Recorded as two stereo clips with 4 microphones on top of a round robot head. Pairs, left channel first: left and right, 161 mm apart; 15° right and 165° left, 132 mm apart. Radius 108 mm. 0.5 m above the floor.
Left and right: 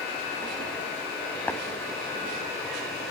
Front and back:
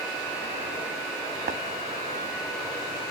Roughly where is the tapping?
Behind.